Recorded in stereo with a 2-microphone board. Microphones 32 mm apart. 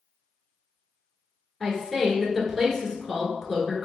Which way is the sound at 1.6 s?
10° left (ahead or behind).